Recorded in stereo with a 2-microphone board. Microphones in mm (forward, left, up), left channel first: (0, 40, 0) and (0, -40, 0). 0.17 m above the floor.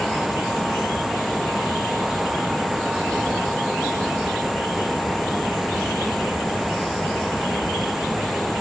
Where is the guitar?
I don't hear a guitar.